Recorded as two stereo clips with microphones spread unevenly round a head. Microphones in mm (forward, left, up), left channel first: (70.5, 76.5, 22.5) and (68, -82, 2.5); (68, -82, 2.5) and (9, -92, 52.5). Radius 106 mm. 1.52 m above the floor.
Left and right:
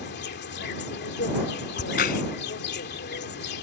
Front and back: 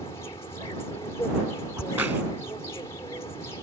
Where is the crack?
135° left.